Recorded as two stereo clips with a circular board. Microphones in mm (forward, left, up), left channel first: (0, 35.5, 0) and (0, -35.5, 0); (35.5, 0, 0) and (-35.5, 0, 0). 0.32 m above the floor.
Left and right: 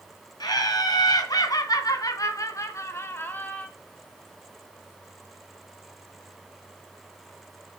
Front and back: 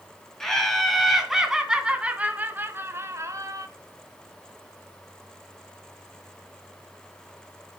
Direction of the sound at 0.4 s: 85° left.